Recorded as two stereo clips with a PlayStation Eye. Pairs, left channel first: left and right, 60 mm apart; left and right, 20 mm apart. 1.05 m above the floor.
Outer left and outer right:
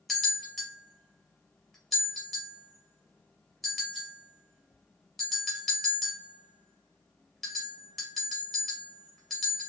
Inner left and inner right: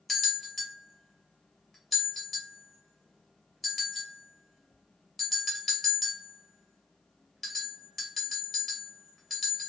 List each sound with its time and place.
0.1 s a bell: 5° left (ahead or behind), 1.4 m